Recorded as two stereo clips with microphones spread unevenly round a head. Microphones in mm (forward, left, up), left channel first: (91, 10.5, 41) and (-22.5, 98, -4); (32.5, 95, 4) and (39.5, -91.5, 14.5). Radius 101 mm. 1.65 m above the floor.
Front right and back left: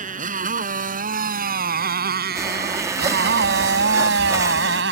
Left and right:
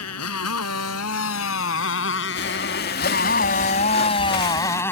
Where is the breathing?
65° left.